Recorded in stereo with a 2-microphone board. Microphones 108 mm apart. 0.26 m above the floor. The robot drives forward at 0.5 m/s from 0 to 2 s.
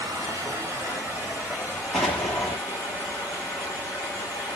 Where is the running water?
35° right (ahead or behind), 1.0 m; by 4.6 s 20° right (ahead or behind), 1.8 m.